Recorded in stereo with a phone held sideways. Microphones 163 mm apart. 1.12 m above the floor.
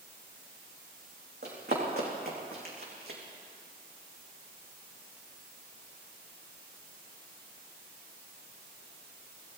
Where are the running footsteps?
75° right (ahead or behind), 4.5 m; by 3.2 s 70° right (ahead or behind), 3.5 m.